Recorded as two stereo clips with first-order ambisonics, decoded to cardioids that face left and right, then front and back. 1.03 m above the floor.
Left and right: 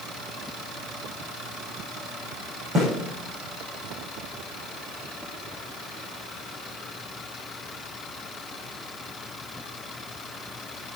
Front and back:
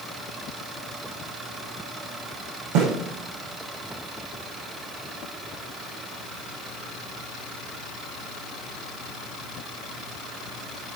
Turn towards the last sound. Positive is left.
turn(degrees=-155)